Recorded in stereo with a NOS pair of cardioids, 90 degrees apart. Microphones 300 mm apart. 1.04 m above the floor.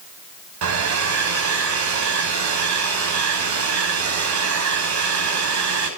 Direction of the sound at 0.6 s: 70° right.